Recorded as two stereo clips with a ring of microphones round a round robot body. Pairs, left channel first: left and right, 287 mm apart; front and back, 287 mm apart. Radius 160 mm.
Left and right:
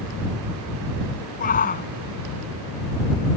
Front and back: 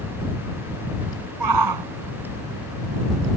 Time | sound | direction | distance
1.4 | a shout | 155° left | ?